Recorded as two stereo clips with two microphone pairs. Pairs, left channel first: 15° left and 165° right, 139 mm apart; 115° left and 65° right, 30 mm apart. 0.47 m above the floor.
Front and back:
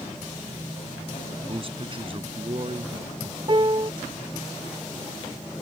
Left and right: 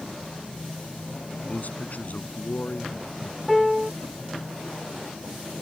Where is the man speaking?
150° left.